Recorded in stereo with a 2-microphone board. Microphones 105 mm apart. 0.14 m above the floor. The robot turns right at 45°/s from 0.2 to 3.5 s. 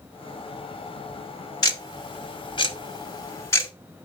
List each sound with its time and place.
1.6 s ticking: 40° left (ahead or behind), 1.8 m; by 3.7 s 25° left (ahead or behind), 1.8 m